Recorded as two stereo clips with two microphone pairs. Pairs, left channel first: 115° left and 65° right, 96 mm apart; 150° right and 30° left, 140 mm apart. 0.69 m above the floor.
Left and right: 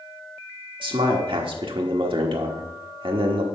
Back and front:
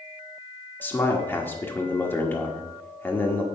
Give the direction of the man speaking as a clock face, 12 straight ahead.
2 o'clock.